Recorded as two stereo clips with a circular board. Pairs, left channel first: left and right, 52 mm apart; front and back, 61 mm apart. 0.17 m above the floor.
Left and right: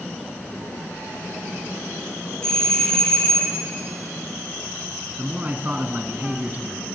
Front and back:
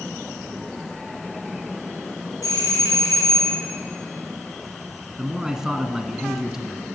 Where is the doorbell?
15° left, 6 m.